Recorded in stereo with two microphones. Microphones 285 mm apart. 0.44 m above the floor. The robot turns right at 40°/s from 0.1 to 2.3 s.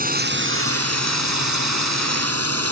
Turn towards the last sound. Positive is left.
turn(degrees=-60)